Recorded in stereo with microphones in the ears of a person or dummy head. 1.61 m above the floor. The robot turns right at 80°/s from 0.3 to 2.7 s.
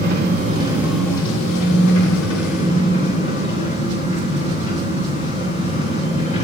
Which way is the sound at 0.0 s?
50° right.